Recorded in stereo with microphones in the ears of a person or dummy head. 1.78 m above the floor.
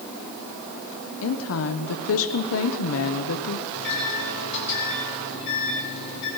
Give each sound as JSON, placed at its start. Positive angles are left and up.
{"t": 1.2, "sound": "a woman speaking", "side_deg": 75, "distance_m": 0.8}
{"t": 3.7, "sound": "a microwave", "side_deg": 60, "distance_m": 5.0}